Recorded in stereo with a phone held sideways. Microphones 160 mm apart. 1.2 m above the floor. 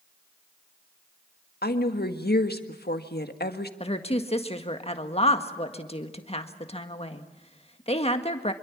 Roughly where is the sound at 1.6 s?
Left.